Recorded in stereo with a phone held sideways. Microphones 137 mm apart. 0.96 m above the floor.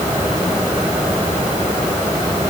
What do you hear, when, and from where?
Only background noise.